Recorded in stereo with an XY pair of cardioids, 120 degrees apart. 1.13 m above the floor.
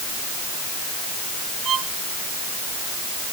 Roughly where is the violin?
Ahead right.